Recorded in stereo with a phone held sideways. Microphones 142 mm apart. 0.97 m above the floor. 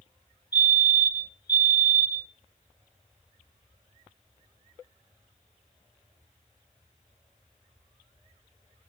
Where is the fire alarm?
30° left (ahead or behind), 1.4 m.